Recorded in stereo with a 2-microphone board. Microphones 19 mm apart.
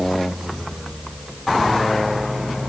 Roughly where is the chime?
I don't hear a chime.